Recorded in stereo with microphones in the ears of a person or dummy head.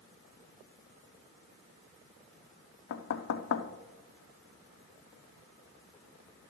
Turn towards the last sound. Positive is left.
turn(degrees=70)  # may be behind; listen again after turning